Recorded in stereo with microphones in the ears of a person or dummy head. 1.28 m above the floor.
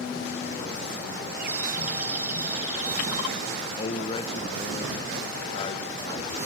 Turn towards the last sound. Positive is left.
turn(degrees=35)  # may be behind; listen again after turning